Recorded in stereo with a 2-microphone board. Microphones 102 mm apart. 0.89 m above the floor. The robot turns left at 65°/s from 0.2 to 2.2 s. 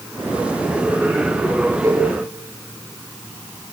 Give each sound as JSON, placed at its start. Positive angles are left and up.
{"t": 1.8, "sound": "a cowbell", "side_deg": -35, "distance_m": 6.0}